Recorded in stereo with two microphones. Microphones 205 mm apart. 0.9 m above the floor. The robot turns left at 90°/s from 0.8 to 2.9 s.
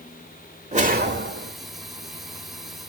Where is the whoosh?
35° right, 1.6 m; by 1.5 s 105° right, 1.6 m.